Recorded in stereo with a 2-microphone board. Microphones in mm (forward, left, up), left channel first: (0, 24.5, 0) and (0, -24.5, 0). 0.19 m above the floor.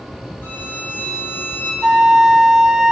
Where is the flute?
15° right (ahead or behind), 1.2 m.